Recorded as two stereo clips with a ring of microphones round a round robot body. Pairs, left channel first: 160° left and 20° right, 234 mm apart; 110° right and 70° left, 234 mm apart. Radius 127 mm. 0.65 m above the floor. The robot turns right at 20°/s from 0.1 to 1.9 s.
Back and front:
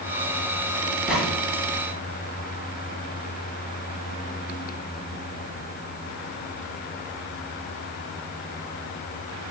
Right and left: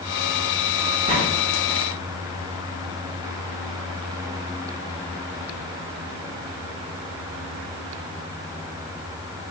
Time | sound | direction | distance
1.1 | a gunshot | 65° left | 8 m